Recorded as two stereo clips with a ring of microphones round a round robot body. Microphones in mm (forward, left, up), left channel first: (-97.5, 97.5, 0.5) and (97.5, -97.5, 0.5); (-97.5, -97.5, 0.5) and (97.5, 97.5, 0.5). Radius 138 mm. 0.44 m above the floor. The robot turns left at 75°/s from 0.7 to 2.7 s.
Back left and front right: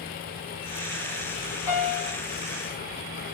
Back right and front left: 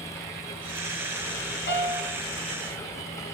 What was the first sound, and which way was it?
A piano, 170° left.